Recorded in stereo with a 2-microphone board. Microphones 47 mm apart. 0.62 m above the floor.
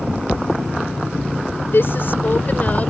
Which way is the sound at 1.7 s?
60° left (ahead or behind).